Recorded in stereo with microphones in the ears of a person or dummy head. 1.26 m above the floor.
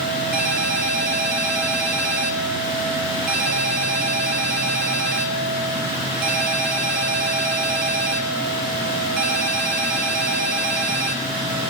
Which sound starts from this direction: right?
A ringtone, at 0.3 s.